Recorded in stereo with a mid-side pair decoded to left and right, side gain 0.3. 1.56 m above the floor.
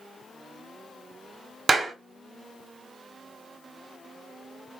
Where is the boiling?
I don't hear boiling.